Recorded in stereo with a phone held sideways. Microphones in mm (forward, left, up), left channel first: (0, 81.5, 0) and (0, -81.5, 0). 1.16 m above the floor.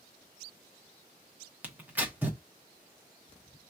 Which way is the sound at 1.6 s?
10° right (ahead or behind).